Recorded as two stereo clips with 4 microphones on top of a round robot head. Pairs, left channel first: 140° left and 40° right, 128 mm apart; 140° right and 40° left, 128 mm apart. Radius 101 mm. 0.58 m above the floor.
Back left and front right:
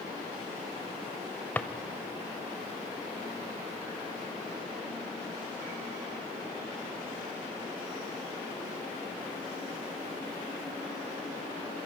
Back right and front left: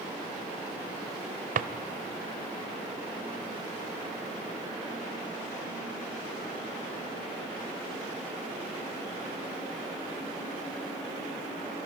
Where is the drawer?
60° left, 0.6 m.